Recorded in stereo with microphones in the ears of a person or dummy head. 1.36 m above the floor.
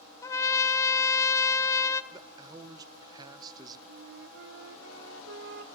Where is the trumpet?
15° left (ahead or behind), 0.6 m.